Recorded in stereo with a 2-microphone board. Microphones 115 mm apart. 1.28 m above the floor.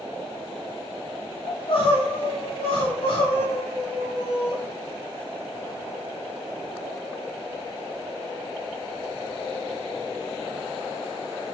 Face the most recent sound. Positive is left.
turn(degrees=55)  # may be behind; listen again after turning